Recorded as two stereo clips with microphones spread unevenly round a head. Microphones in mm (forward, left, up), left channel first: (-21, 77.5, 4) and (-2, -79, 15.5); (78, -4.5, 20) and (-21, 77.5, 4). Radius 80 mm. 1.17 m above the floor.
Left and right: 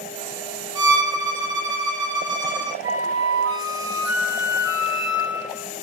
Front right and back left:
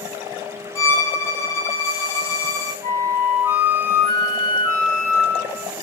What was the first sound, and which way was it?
A violin, 55° right.